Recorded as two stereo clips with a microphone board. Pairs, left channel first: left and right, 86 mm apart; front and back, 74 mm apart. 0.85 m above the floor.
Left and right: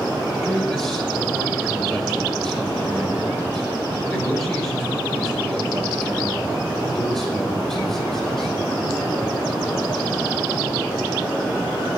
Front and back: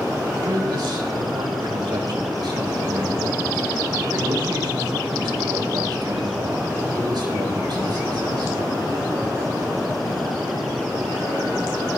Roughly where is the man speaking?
Behind.